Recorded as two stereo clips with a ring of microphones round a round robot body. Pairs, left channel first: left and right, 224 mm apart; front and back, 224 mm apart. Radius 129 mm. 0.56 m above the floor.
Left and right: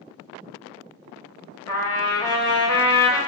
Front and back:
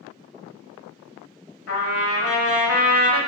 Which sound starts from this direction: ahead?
A trumpet, at 1.7 s.